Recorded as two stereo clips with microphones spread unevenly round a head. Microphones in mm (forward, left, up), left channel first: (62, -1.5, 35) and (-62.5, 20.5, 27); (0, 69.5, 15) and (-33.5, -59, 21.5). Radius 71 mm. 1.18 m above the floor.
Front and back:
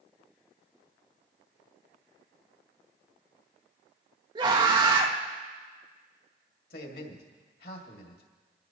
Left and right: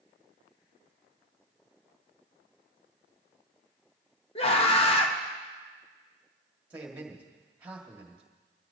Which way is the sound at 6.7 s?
25° right.